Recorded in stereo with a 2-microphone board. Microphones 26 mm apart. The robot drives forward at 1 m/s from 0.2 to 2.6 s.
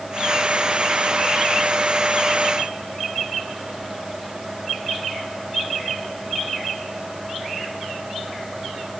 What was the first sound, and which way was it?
Only background noise.